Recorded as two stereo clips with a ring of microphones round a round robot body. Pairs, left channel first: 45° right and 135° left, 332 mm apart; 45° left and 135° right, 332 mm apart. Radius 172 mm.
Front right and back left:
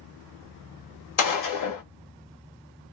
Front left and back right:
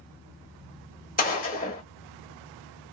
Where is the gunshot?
20° right, 1.1 m.